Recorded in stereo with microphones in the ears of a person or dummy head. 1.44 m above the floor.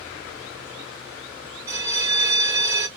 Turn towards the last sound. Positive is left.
turn(degrees=-15)  # may be behind; listen again after turning